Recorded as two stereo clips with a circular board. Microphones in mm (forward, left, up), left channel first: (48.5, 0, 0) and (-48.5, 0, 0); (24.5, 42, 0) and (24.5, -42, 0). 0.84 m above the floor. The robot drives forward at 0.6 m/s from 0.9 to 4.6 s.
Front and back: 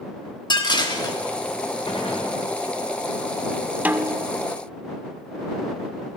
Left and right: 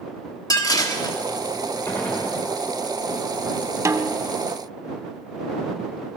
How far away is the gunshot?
About 3 m.